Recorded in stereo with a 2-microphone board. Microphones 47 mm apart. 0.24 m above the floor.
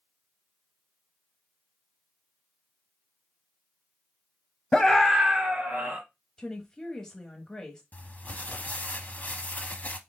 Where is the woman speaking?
15° left (ahead or behind), 1.0 m.